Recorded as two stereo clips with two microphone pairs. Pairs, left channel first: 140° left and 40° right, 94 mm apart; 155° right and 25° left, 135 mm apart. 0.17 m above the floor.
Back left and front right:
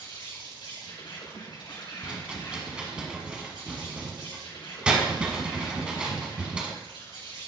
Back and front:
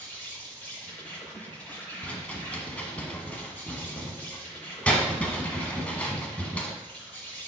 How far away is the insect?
About 4 m.